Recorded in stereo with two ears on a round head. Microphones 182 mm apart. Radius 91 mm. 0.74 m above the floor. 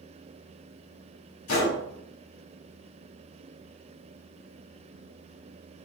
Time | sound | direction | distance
1.5 | a gunshot | 85° left | 2.0 m